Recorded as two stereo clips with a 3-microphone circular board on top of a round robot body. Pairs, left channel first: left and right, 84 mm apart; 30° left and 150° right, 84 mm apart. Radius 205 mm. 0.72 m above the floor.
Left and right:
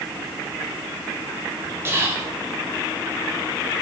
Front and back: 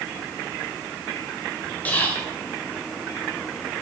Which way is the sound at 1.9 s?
35° right.